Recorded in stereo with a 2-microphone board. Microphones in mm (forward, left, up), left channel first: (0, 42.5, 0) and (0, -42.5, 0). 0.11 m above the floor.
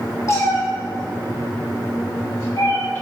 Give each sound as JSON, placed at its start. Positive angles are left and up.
{"t": 0.3, "sound": "a cat meowing", "side_deg": 35, "distance_m": 2.5}